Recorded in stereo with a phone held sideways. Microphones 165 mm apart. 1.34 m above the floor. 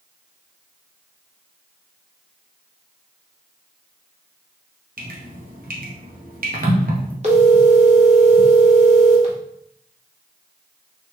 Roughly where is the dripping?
Right.